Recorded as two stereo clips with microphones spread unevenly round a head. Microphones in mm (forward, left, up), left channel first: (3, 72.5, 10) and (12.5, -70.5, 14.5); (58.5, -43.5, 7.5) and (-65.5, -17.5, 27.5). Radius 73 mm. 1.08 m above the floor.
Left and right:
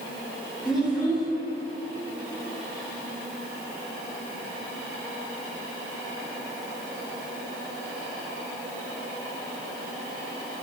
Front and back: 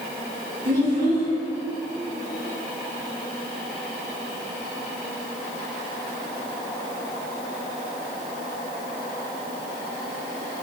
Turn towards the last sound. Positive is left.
turn(degrees=175)